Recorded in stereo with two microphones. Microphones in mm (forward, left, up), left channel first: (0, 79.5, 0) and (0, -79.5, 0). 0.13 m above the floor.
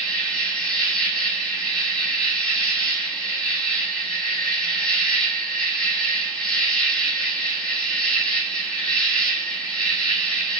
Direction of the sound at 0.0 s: 5° left (ahead or behind).